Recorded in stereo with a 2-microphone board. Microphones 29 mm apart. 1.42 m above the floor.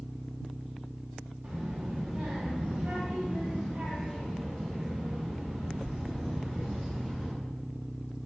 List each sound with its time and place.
1.4 s a child speaking: 65° right (ahead or behind), 1.4 m; by 7.3 s 55° right (ahead or behind), 4.5 m